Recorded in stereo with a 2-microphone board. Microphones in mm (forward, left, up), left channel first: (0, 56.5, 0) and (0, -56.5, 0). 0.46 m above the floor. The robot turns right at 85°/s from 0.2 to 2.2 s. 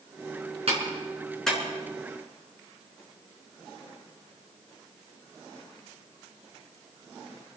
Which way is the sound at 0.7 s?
60° right (ahead or behind).